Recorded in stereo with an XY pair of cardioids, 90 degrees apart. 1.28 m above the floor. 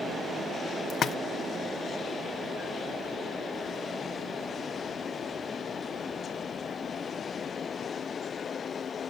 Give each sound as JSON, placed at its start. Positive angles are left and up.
{"t": 0.9, "sound": "a splash", "azimuth_deg": 65, "distance_m": 0.5}